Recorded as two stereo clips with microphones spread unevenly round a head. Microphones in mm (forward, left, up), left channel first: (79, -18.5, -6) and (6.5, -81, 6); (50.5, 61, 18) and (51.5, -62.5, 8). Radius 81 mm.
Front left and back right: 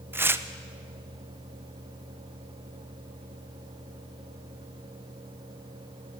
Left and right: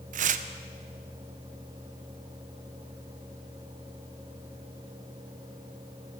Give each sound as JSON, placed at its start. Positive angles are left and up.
{"t": 0.1, "sound": "tearing paper", "azimuth_deg": -80, "distance_m": 0.7}